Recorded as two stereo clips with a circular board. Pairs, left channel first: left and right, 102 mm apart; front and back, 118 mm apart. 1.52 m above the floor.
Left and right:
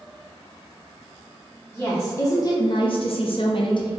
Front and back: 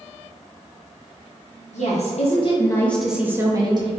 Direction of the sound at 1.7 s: 10° left.